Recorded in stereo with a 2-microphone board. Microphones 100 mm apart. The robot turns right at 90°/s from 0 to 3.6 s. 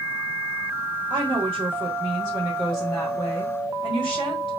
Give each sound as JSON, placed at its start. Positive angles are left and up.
{"t": 1.1, "sound": "a woman speaking", "azimuth_deg": -125, "distance_m": 1.4}